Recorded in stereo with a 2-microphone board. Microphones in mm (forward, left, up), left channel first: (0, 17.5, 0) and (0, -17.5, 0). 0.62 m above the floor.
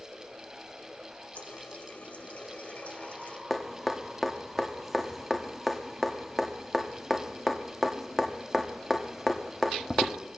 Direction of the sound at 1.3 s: 45° left (ahead or behind).